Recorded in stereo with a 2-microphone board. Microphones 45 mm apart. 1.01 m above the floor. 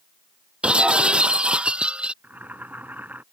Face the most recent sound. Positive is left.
turn(degrees=-40)  # may be behind; listen again after turning